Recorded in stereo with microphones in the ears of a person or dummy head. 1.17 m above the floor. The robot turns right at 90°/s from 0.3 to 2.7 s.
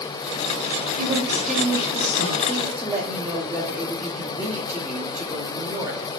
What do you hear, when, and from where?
1.0 s a woman speaking: 45° right, 5.5 m; by 2.4 s 85° left, 5.5 m
2.5 s a woman speaking: 15° left (ahead or behind), 3 m; by 6.0 s 5° right (ahead or behind), 3 m